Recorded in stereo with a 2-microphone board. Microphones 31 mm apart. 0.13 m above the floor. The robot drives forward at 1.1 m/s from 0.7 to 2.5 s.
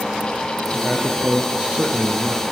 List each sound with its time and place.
0.7 s a man speaking: 30° right (ahead or behind), 3 m; by 2.4 s 45° right (ahead or behind), 2 m